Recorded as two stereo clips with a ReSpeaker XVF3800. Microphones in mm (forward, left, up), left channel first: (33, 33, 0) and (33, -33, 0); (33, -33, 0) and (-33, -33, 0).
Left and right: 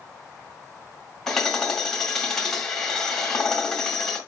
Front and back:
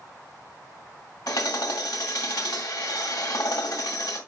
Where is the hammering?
5° left, 1.7 m.